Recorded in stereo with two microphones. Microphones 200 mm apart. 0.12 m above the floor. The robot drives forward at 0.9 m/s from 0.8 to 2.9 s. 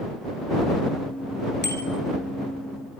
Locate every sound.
1.6 s a bicycle bell: 60° right (ahead or behind), 2.5 m; by 1.8 s 65° right (ahead or behind), 2.5 m